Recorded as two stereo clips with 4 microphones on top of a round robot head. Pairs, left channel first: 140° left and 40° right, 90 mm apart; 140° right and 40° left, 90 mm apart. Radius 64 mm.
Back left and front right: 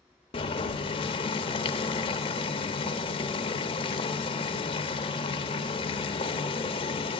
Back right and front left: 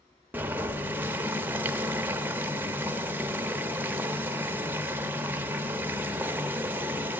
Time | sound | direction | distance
0.3 | boiling | 110° left | 0.6 m